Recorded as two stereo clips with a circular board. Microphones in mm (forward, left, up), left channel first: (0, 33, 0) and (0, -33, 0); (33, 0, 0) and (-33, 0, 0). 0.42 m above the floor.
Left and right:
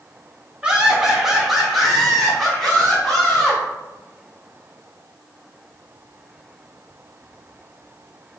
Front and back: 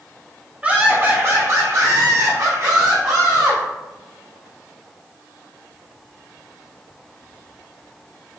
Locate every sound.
0.6 s laughter: 140° right, 0.8 m; by 3.6 s 175° left, 1.9 m